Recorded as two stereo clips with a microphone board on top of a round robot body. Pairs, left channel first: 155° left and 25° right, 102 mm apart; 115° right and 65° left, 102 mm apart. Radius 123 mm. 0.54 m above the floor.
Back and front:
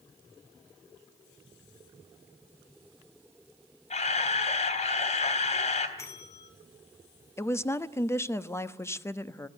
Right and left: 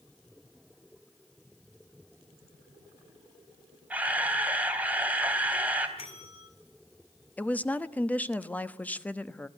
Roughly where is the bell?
Behind right.